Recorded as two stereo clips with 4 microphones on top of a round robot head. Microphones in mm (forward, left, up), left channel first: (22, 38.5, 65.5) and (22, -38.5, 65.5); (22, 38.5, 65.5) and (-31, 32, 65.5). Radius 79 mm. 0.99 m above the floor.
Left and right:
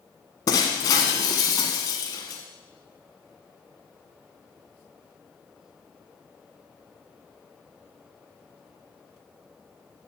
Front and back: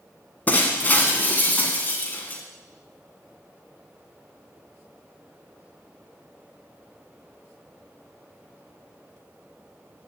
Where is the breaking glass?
60° left, 1.2 m.